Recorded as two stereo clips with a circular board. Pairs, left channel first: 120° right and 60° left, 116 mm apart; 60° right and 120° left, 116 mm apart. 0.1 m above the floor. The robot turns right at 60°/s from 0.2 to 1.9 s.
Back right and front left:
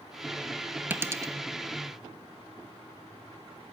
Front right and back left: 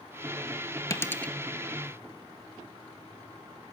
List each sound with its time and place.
0.9 s a dropped coin: 10° right, 0.6 m; by 1.3 s 20° left, 0.6 m